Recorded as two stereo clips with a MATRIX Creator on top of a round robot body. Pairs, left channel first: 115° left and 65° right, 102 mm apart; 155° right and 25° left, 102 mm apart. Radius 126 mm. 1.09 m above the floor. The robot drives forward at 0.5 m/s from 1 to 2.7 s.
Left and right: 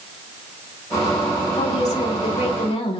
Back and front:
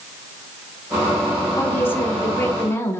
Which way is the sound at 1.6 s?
130° left.